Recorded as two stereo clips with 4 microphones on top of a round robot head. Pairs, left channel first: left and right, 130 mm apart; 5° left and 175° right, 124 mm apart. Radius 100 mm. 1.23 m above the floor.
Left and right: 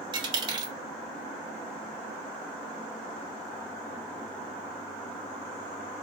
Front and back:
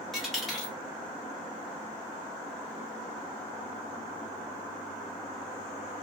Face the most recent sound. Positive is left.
turn(degrees=-85)